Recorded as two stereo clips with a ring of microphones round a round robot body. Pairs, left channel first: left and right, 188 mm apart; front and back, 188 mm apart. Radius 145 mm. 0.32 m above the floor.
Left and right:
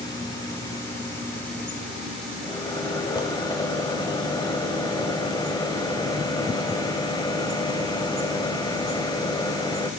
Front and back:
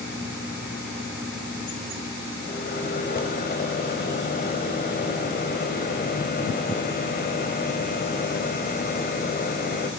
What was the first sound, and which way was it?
A microwave, 25° left.